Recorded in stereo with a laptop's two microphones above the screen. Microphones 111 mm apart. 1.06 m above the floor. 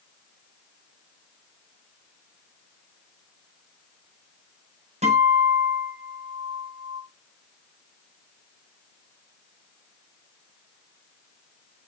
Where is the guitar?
85° right, 5.5 m.